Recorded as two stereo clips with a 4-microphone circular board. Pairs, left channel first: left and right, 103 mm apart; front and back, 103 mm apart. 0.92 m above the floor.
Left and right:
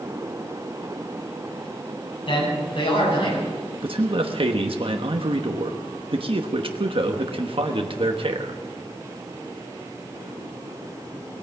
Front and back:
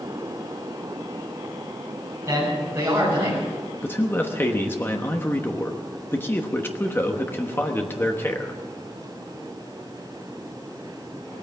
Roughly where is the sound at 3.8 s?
Ahead right.